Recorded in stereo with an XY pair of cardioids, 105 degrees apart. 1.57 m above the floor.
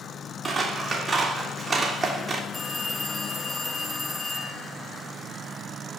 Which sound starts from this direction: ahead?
A phone ringing, at 2.5 s.